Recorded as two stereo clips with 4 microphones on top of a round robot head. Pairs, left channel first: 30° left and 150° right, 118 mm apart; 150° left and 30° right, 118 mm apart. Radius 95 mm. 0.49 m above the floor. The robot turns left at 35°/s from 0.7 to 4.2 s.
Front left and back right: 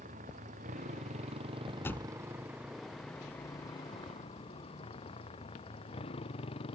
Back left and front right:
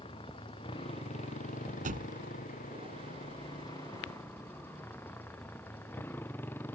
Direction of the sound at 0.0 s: 165° right.